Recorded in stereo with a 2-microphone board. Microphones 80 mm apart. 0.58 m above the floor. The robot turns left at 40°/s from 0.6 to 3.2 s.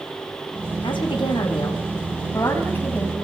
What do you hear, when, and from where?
0.8 s a woman speaking: 105° left, 5 m; by 3.2 s 10° left, 5 m